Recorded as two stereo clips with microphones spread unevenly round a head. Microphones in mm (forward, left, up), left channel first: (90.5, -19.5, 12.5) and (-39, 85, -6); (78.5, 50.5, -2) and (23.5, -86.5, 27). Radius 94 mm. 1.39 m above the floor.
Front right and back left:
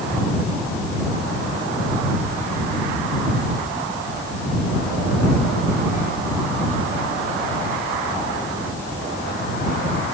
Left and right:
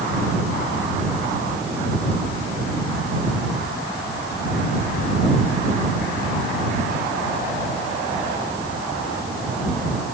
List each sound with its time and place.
Only background noise.